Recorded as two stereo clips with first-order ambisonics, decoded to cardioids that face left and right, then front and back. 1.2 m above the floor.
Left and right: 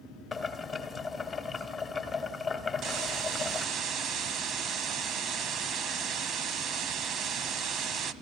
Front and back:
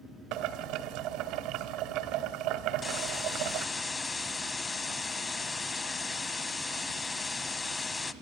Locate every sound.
0.3 s boiling: 165° left, 1.7 m
2.8 s a hiss: 65° right, 1.2 m